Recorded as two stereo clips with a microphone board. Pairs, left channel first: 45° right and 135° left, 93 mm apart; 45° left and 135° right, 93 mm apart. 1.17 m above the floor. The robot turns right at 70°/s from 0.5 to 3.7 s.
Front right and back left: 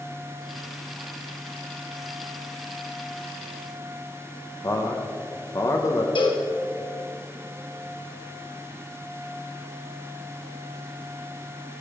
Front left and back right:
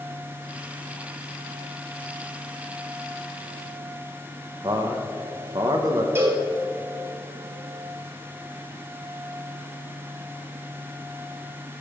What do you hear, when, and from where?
4.6 s a man speaking: 100° right, 1.2 m
6.2 s a cowbell: 75° right, 1.6 m